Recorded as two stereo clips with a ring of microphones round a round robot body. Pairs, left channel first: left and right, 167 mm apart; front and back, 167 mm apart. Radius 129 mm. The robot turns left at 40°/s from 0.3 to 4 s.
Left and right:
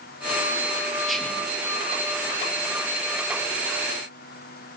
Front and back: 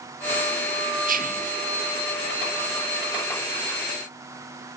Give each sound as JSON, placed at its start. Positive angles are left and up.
{"t": 1.1, "sound": "whispering", "azimuth_deg": 180, "distance_m": 1.3}